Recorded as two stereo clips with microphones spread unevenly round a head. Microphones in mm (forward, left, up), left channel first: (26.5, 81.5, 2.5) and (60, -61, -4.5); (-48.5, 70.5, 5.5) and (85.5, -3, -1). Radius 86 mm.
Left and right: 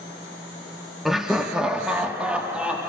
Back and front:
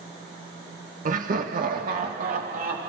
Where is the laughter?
10° left, 1.5 m; by 2.9 s 5° left, 3 m.